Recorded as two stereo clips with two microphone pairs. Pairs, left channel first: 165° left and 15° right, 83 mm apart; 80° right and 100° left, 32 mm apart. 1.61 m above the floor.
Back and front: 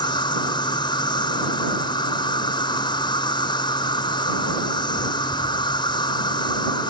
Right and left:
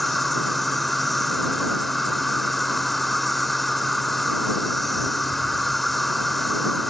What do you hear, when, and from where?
0.0 s an insect: 170° right